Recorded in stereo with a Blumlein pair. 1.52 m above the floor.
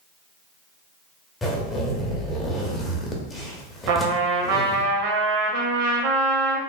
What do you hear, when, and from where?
1.4 s a zipper: 10° left, 0.6 m
3.9 s a trumpet: 50° right, 0.6 m